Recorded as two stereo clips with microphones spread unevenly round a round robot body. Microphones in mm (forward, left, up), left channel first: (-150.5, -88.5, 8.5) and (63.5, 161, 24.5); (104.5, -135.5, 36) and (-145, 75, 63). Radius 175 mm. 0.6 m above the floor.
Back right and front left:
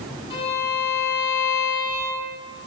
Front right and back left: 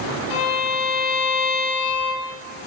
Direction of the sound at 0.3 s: 55° right.